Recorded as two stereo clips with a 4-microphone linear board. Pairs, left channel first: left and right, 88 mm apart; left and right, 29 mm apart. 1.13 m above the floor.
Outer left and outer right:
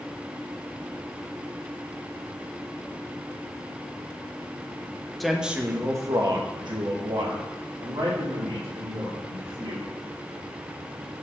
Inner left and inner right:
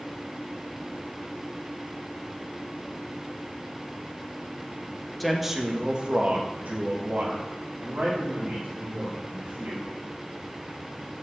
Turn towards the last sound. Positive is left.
turn(degrees=-90)